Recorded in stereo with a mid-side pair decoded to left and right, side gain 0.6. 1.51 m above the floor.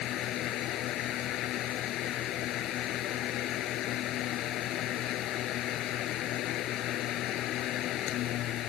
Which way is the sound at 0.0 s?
60° left.